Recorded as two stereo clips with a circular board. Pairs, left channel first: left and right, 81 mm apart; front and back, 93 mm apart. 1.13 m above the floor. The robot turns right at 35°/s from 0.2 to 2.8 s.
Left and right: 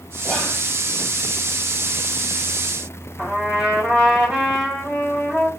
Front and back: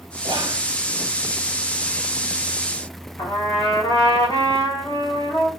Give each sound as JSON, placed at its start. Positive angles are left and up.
{"t": 0.2, "sound": "whispering", "azimuth_deg": -175, "distance_m": 0.5}
{"t": 3.2, "sound": "a trumpet", "azimuth_deg": -5, "distance_m": 1.7}